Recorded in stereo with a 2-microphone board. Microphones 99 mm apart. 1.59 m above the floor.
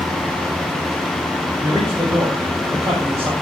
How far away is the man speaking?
About 9.5 m.